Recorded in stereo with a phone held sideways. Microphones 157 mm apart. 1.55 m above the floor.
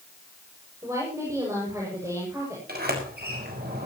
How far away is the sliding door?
About 6 m.